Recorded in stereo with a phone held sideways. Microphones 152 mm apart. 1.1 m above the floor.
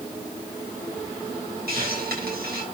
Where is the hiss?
85° right, 6.5 m.